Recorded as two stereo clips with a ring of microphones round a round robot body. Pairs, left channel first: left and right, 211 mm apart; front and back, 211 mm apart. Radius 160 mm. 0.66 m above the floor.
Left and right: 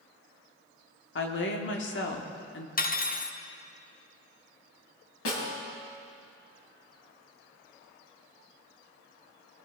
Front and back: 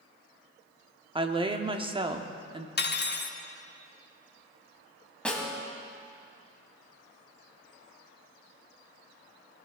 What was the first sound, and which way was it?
A woman speaking, 115° left.